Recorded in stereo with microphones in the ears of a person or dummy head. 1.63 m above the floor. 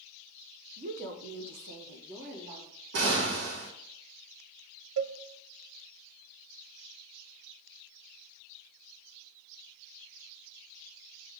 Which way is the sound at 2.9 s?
60° right (ahead or behind).